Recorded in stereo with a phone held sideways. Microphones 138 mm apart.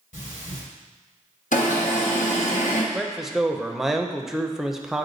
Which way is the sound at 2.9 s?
Centre (ahead or behind).